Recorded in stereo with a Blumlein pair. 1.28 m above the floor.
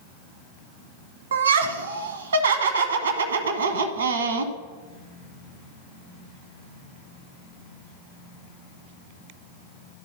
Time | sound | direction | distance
1.3 | laughter | 65° right | 1.0 m